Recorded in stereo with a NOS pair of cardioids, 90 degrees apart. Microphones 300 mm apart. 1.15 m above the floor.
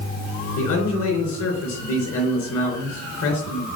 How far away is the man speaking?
About 3.5 m.